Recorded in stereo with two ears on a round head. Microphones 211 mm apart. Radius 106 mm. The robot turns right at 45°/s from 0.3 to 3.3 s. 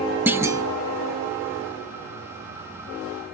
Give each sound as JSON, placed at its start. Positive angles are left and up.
{"t": 0.3, "sound": "a clunk", "side_deg": -10, "distance_m": 0.9}